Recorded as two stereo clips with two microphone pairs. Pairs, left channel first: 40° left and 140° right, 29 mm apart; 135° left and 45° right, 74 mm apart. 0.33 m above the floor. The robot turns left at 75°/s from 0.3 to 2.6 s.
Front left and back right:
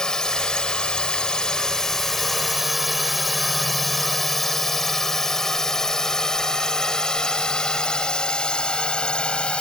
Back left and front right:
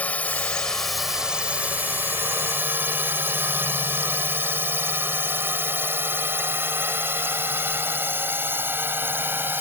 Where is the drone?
85° left; by 9.6 s 5° left.